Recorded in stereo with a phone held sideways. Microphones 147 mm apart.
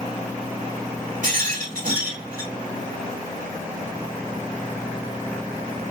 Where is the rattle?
65° right (ahead or behind), 1.6 m.